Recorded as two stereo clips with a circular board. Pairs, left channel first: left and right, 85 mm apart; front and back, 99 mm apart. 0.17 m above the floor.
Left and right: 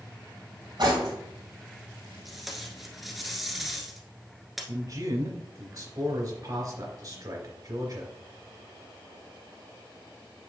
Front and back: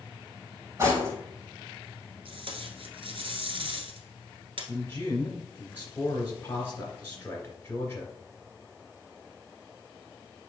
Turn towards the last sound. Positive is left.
turn(degrees=-65)